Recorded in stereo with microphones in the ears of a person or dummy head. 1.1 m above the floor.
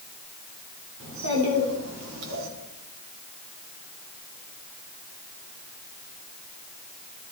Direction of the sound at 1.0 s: 70° right (ahead or behind).